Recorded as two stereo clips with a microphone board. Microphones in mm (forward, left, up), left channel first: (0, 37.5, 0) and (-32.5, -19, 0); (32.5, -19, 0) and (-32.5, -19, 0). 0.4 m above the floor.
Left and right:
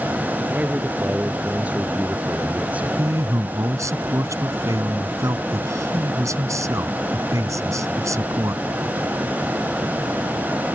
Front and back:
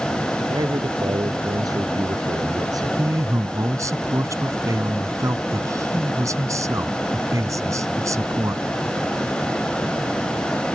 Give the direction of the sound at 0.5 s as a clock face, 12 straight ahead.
6 o'clock.